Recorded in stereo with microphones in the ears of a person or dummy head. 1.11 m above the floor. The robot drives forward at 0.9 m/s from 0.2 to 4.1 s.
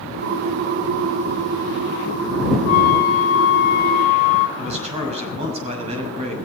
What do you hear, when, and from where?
2.7 s a flute: 45° left (ahead or behind), 0.9 m; by 4.5 s 40° left (ahead or behind), 1.0 m
4.6 s a man speaking: 35° right (ahead or behind), 6.5 m